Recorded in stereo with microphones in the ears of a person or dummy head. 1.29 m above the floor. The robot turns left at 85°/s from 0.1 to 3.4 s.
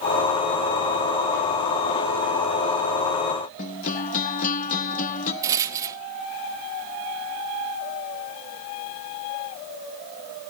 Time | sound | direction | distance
3.6 | a guitar | 40° left (ahead or behind) | 1.0 m
5.4 | a rattle | 20° right (ahead or behind) | 0.8 m